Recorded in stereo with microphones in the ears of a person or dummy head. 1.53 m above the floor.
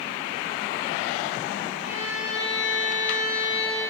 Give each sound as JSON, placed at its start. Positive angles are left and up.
{"t": 1.8, "sound": "a violin", "side_deg": 45, "distance_m": 2.5}